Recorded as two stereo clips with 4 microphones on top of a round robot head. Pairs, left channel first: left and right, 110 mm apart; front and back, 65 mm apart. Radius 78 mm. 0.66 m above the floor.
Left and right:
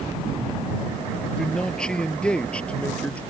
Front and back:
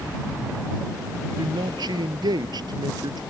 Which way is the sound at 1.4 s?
175° left.